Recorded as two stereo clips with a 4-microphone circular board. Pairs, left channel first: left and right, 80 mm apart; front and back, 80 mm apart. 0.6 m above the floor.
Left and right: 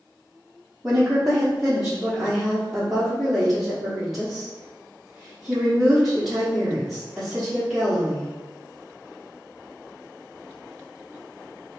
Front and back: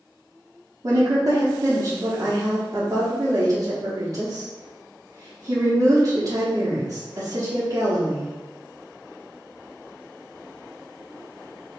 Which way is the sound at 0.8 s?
175° right.